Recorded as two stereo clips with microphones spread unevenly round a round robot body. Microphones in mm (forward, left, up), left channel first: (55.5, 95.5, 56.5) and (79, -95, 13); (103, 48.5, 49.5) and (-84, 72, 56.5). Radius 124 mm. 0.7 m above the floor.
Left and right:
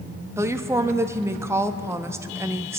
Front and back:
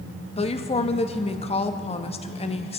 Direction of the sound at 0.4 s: 35° right.